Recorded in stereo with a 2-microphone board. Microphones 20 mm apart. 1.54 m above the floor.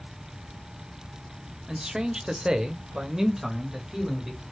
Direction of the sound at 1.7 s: 40° right (ahead or behind).